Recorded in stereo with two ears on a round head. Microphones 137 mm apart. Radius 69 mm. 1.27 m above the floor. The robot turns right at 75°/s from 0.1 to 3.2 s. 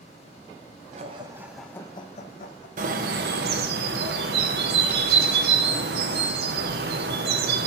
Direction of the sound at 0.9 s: 50° right.